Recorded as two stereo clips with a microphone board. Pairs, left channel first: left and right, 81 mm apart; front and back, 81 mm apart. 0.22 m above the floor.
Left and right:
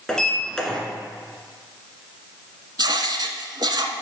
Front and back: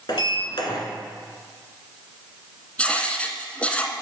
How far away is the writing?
About 0.7 m.